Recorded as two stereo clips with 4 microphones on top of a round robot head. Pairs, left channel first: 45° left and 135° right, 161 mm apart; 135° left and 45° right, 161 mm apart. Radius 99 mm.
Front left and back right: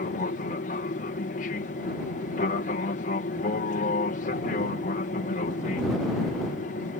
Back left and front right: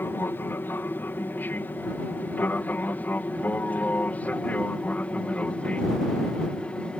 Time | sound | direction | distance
0.0 | an aircraft | 60° left | ?